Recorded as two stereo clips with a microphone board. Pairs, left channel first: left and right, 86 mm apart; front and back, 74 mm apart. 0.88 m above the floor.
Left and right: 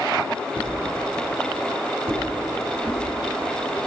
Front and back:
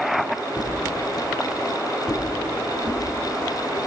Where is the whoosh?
155° right, 6.5 m.